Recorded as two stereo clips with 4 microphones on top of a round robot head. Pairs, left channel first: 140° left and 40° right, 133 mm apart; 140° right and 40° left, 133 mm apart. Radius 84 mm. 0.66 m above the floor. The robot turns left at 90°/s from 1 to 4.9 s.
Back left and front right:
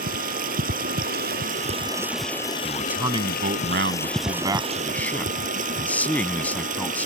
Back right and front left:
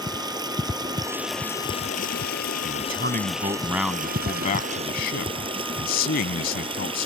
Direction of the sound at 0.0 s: 20° right.